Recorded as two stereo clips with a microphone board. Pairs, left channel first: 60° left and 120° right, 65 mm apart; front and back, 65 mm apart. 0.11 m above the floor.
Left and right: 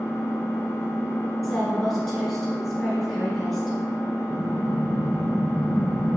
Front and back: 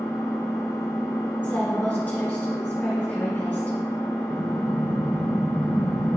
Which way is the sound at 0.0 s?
10° left.